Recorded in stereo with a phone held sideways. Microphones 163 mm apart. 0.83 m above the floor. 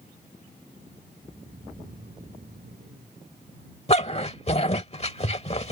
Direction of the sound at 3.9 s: 40° left (ahead or behind).